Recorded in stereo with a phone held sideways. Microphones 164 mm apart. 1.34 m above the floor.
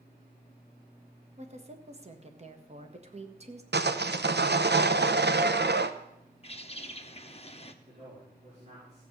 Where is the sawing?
75° right (ahead or behind), 0.7 m.